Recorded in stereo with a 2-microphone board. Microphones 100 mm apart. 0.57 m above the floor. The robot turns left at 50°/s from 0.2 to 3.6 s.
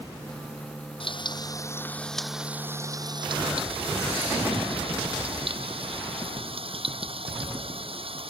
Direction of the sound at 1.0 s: 60° left.